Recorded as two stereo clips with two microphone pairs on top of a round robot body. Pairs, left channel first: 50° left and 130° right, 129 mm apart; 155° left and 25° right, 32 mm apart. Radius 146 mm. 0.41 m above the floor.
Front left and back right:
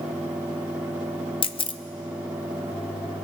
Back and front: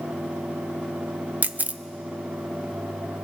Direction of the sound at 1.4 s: Straight ahead.